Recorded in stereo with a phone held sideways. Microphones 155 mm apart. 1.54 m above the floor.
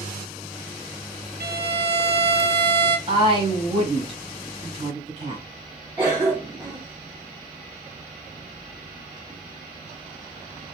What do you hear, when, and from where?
1.4 s a violin: 85° right, 0.5 m
3.1 s a woman speaking: 30° right (ahead or behind), 1.2 m
6.0 s a cough: 10° right (ahead or behind), 0.7 m